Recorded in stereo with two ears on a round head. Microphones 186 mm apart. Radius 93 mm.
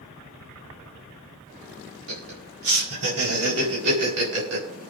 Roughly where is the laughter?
Right.